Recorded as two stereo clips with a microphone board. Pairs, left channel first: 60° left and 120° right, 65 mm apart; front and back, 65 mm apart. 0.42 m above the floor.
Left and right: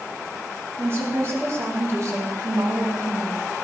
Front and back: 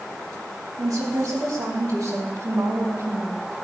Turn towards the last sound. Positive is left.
turn(degrees=-140)